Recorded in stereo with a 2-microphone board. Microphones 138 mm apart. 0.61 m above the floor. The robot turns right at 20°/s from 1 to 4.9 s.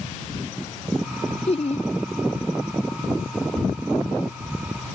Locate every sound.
1.5 s laughter: 45° left (ahead or behind); by 1.9 s 50° left (ahead or behind)